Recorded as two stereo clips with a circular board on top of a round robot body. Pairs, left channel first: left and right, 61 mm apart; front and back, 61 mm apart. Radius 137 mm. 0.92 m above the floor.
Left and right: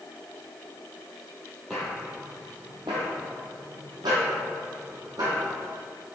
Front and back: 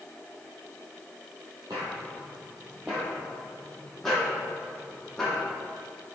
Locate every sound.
1.7 s footsteps: straight behind, 0.9 m; by 5.4 s 80° right, 2 m